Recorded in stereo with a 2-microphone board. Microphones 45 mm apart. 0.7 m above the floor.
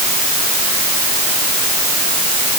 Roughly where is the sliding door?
No sliding door in this recording.